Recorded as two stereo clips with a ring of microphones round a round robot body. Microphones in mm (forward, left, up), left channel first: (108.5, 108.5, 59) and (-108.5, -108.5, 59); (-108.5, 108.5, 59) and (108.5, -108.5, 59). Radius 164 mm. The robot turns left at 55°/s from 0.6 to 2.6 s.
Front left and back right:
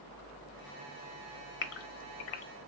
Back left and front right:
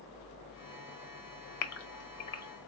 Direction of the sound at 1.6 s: 100° left.